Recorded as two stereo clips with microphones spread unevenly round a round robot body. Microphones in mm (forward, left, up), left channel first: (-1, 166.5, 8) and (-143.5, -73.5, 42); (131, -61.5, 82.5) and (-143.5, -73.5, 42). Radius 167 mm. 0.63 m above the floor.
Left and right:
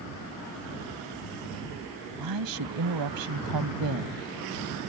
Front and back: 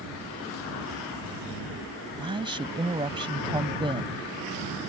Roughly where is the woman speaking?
Right.